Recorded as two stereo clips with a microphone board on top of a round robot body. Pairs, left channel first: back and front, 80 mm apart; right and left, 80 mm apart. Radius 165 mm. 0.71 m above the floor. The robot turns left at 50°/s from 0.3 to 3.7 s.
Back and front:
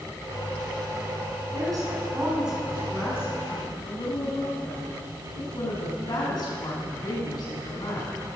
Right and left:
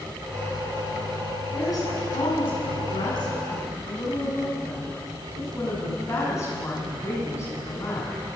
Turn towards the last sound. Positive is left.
turn(degrees=-145)